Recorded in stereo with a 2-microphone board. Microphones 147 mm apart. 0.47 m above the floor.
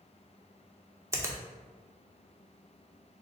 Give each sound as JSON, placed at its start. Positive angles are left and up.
{"t": 1.1, "sound": "a finger snap", "side_deg": -20, "distance_m": 0.6}